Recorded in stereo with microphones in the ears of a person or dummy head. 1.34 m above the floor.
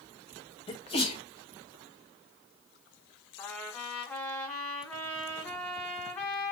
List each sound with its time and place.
0.7 s a sneeze: 25° left (ahead or behind), 0.7 m
3.4 s a trumpet: 5° left (ahead or behind), 0.8 m